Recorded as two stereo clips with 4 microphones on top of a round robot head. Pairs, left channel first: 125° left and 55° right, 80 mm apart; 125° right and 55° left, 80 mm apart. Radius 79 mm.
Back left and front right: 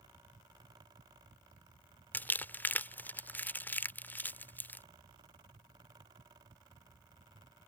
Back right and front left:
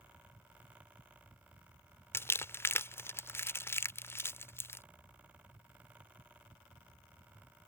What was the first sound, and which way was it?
Crumpling, 175° right.